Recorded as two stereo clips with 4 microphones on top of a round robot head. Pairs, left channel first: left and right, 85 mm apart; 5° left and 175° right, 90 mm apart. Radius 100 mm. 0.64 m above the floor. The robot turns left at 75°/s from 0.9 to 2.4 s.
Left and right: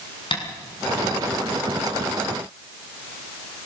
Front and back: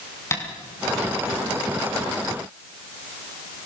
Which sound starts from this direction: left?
Tapping, at 0.3 s.